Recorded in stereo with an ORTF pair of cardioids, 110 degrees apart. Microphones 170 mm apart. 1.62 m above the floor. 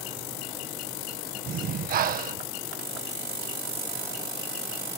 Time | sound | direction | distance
1.5 | breathing | 60° right | ?